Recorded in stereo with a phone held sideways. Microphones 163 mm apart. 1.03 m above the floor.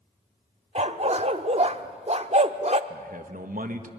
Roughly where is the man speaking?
Right.